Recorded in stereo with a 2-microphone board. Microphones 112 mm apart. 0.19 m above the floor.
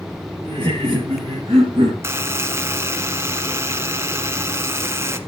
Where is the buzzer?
25° right (ahead or behind), 1.1 m.